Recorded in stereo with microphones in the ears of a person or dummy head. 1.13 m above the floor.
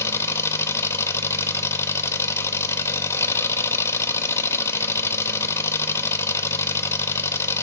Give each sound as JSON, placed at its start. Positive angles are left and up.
{"t": 0.0, "sound": "an engine running", "side_deg": 15, "distance_m": 0.8}